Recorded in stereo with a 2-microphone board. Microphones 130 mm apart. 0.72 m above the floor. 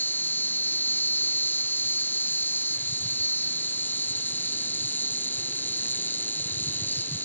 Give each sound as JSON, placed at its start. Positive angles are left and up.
{"t": 0.0, "sound": "an insect", "side_deg": 15}